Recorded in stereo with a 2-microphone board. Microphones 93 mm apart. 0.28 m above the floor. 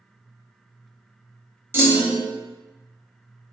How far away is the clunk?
About 0.6 m.